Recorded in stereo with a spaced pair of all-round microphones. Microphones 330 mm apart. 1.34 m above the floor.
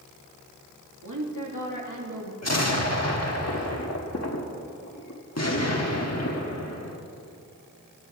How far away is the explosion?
About 1.5 m.